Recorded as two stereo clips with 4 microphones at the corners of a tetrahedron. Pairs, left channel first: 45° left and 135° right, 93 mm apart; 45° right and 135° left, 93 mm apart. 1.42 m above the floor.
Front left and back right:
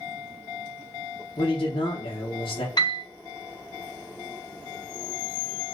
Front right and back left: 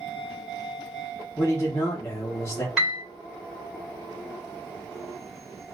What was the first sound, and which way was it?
A man speaking, 20° left.